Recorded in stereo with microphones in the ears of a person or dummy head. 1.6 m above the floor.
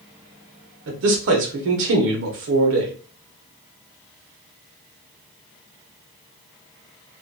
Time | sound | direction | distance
0.9 | a man speaking | 55° right (ahead or behind) | 0.8 m